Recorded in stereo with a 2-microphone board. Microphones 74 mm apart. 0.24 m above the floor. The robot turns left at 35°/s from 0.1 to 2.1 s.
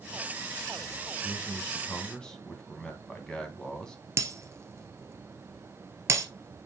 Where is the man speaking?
45° left, 2.5 m; by 4.0 s 15° left, 2.5 m.